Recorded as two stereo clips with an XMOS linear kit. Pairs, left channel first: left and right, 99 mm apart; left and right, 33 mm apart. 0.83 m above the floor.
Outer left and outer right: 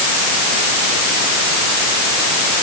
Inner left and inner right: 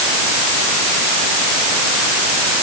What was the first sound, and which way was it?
Only background noise.